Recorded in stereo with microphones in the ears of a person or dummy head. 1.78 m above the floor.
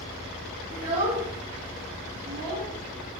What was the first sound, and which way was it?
A child speaking, 40° right (ahead or behind).